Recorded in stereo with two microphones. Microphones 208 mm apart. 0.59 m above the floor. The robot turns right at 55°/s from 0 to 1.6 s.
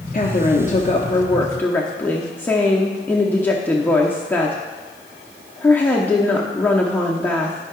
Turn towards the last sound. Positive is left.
turn(degrees=165)